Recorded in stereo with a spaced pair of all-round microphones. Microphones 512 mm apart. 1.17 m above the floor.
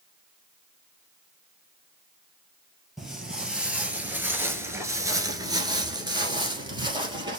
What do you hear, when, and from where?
3.0 s footsteps: centre (ahead or behind), 1.6 m; by 7.4 s 10° right (ahead or behind), 1.6 m